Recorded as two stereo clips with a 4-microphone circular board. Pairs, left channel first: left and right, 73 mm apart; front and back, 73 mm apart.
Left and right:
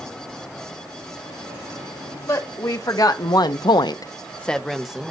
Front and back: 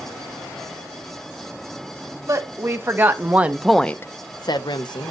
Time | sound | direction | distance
2.3 | a woman speaking | 130° left | 2 m